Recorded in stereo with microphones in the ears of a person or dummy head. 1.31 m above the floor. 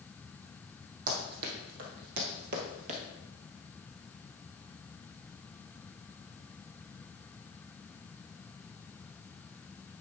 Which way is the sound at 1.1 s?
50° right (ahead or behind).